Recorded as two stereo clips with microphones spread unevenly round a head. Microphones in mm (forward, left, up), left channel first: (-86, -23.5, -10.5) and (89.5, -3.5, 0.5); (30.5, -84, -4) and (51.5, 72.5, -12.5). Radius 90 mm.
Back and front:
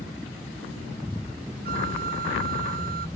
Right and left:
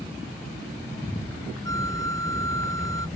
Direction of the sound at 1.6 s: 30° right.